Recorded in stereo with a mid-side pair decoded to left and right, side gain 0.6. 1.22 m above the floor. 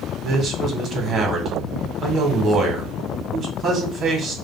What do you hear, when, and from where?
0.2 s a man speaking: 35° right, 1.5 m